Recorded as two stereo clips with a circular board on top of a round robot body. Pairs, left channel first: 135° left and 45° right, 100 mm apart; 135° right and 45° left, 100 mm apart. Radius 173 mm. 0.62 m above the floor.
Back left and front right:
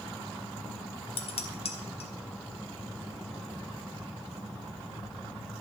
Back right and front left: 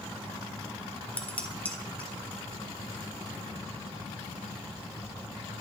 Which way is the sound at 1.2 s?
150° left.